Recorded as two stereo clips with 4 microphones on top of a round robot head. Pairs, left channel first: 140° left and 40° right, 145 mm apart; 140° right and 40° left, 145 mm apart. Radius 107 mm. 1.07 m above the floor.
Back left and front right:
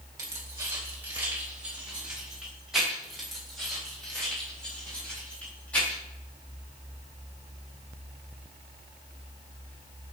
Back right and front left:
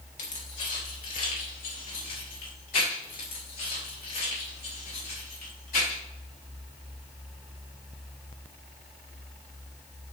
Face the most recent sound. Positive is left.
turn(degrees=-140)